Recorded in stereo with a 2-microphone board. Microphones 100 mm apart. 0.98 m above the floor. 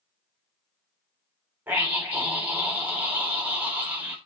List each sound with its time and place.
1.7 s a scream: 15° right (ahead or behind), 4.5 m